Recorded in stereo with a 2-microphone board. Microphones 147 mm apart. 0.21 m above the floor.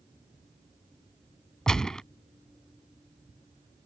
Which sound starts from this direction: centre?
A gunshot, at 1.7 s.